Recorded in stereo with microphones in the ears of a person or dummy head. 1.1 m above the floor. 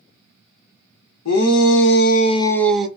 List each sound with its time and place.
1.2 s a shout: 85° left, 0.8 m; by 2.9 s 10° right (ahead or behind), 0.7 m